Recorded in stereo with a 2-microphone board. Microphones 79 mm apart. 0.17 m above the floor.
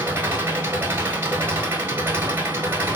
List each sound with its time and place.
0.0 s an engine running: 25° right (ahead or behind), 1.1 m